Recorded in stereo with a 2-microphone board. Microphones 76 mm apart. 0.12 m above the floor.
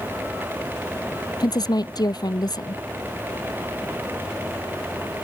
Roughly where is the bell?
No bell in this recording.